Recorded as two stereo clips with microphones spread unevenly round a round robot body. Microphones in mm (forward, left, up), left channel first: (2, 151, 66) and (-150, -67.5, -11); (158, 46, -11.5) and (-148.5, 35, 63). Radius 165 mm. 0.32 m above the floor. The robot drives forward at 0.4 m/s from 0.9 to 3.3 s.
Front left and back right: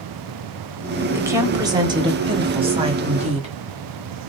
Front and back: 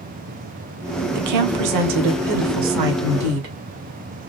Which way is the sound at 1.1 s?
175° right.